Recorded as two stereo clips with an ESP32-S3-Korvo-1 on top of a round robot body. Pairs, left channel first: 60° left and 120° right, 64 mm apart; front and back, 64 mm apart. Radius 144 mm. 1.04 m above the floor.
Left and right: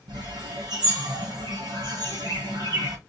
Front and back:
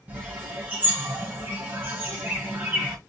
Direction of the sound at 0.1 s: 115° right.